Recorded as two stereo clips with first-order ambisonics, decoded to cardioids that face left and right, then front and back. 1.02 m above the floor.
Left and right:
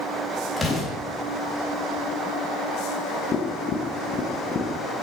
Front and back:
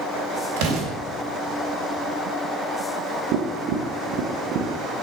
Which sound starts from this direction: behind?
An explosion, at 0.6 s.